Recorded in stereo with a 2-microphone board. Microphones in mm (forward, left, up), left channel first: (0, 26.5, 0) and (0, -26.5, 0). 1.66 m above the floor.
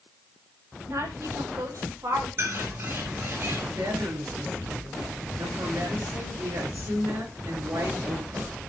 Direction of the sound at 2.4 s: 50° right (ahead or behind).